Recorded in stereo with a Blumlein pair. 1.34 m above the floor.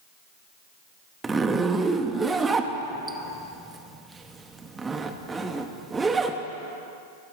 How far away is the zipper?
About 0.7 m.